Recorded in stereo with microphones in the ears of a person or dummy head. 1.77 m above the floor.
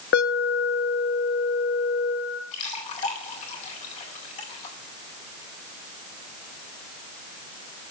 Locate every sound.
0.1 s an alarm: 60° left (ahead or behind), 1.5 m
2.5 s a splash: 40° left (ahead or behind), 4 m